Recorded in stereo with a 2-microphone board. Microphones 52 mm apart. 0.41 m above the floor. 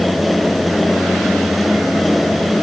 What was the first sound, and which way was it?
Only background noise.